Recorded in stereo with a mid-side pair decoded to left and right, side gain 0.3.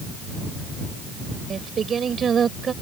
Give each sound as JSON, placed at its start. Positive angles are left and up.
{"t": 1.5, "sound": "singing", "azimuth_deg": -65}